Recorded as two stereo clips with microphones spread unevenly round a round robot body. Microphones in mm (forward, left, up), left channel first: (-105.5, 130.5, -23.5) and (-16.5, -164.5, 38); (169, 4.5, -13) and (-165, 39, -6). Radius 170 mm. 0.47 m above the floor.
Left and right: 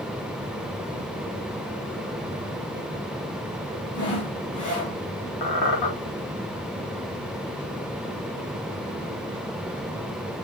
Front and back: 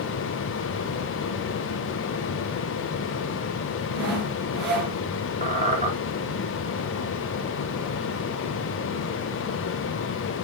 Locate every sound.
3.9 s sawing: 130° left, 4.5 m
5.4 s a squeak: 105° left, 3.5 m